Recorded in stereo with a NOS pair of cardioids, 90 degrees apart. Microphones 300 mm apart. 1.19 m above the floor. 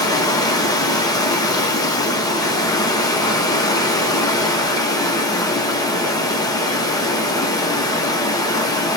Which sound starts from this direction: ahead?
Running water, at 0.0 s.